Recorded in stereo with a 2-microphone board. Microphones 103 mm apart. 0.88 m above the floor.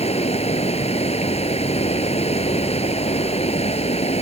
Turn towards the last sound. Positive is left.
turn(degrees=85)